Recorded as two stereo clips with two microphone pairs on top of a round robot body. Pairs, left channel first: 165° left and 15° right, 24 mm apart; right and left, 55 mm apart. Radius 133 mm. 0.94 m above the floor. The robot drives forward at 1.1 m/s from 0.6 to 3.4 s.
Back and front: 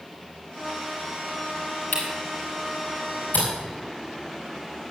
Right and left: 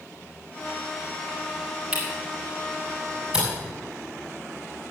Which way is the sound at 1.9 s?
160° left.